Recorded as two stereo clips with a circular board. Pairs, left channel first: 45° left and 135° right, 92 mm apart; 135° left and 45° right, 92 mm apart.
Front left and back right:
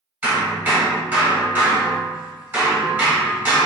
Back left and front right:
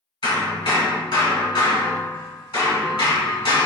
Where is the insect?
I don't hear an insect.